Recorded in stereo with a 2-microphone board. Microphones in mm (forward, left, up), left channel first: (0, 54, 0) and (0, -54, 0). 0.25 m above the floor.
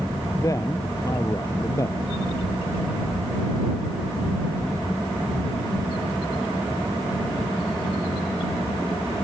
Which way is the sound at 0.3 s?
30° left (ahead or behind).